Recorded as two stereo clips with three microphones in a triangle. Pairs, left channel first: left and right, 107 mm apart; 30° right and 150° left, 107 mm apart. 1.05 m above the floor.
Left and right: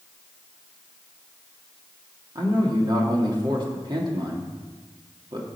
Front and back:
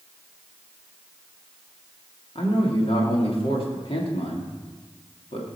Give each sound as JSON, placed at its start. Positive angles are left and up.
{"t": 2.4, "sound": "a man speaking", "azimuth_deg": -50, "distance_m": 2.5}